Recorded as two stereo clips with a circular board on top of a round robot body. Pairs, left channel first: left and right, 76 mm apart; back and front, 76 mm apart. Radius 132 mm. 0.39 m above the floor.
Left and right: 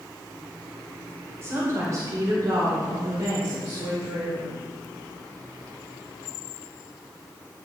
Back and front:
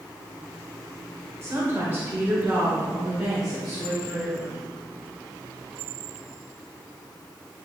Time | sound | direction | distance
1.4 | a woman speaking | 45° right | 2 m